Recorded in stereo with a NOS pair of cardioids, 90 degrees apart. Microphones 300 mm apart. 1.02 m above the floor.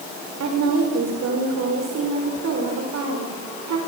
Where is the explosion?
I don't hear an explosion.